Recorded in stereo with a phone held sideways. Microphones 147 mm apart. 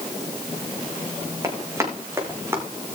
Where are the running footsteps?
20° right (ahead or behind), 3.5 m; by 2.6 s 15° right (ahead or behind), 4.5 m.